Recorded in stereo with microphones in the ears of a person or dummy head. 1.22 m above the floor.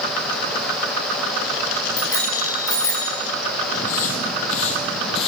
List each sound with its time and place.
2.0 s a bicycle bell: 20° left (ahead or behind), 7.5 m; by 3.1 s 25° left (ahead or behind), 8 m
3.7 s footsteps: 55° left (ahead or behind), 3 m; by 5.3 s 35° left (ahead or behind), 2.5 m